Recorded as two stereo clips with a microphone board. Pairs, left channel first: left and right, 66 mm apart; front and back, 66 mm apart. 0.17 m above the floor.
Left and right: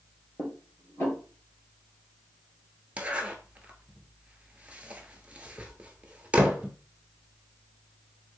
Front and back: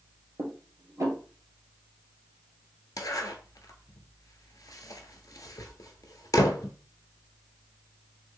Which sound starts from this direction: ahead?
A zipper, at 3.0 s.